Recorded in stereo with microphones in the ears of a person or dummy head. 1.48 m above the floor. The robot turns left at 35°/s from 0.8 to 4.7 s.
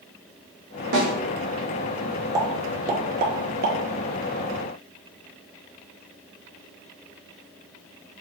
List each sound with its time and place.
0.9 s a snare drum: 60° right (ahead or behind), 1.4 m; by 1.1 s 55° right (ahead or behind), 1.4 m
2.4 s a pop: 25° right (ahead or behind), 0.7 m; by 3.8 s 65° right (ahead or behind), 0.7 m